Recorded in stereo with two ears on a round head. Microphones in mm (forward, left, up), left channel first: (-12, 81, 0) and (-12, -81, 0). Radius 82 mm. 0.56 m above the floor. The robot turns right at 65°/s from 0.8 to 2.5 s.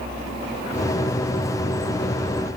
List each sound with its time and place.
Only background noise.